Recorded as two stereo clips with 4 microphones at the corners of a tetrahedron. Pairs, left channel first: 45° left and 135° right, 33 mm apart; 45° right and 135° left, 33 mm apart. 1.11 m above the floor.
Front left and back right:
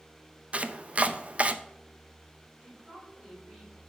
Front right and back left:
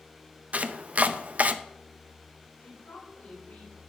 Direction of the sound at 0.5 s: Straight behind.